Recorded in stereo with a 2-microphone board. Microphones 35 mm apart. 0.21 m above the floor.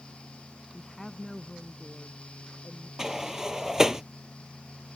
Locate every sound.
0.7 s a woman speaking: 10° left (ahead or behind); by 2.9 s 20° left (ahead or behind)
3.0 s a sliding door: 20° right (ahead or behind)